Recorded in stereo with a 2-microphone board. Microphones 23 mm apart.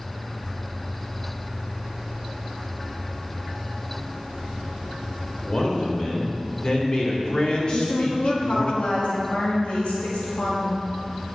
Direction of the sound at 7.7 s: 70° left (ahead or behind).